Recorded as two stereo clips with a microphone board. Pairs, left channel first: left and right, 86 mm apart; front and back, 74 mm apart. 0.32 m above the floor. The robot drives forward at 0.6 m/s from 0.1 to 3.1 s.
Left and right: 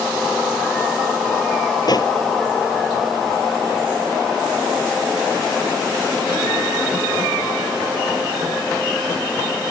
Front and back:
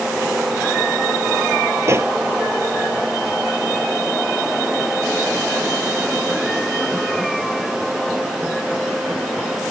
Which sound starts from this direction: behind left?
A pop, at 1.8 s.